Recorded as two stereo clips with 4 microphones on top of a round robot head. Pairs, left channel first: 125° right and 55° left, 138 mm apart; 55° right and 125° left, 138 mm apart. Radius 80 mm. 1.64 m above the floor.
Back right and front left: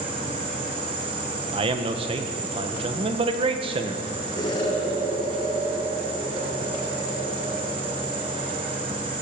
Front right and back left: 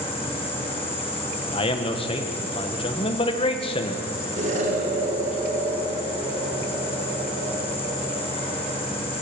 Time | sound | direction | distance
0.0 | an insect | straight ahead | 5.5 m
1.5 | a man speaking | straight ahead | 1.9 m
4.4 | an explosion | 170° left | 5 m